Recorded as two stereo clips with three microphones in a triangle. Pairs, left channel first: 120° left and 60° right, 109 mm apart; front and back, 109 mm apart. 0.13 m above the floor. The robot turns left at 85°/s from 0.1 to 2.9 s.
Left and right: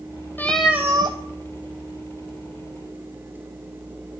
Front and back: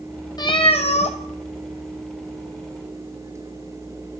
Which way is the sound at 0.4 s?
50° left.